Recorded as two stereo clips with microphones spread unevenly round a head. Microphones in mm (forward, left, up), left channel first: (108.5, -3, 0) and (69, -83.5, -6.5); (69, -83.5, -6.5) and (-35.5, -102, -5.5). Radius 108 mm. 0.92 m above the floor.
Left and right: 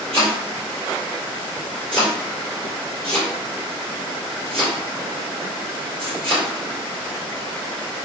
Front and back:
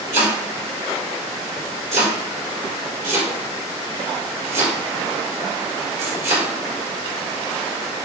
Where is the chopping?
155° left, 3.5 m.